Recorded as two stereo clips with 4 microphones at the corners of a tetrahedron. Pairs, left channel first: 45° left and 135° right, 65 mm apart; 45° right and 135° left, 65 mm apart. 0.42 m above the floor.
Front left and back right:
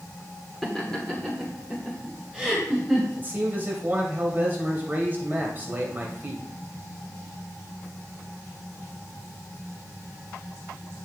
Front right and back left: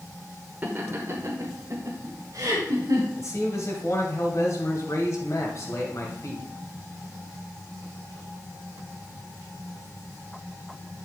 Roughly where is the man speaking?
Right.